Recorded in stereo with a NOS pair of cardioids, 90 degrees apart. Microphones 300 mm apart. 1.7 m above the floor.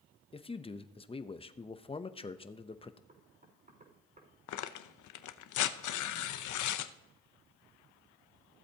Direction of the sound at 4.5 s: 65° left.